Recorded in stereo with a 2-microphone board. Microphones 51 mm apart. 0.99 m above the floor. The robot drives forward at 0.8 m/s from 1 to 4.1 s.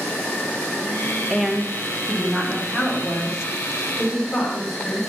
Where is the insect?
35° left (ahead or behind), 1.8 m; by 5.1 s 15° left (ahead or behind), 4 m.